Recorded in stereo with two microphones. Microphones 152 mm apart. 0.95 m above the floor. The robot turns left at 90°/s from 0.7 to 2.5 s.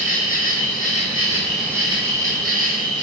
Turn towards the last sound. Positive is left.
turn(degrees=-85)